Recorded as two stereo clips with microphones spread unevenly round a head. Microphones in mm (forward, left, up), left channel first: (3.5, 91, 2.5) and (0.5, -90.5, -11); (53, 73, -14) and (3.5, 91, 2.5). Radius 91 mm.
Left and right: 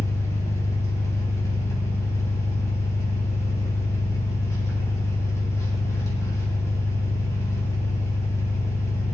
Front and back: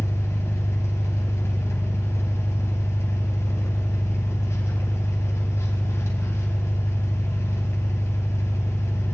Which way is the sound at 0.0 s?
15° left.